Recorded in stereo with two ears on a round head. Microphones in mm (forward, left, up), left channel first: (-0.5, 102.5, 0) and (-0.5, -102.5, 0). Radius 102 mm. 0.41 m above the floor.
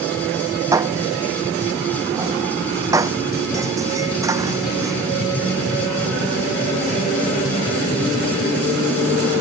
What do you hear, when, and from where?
0.7 s dishes clattering: 15° right (ahead or behind)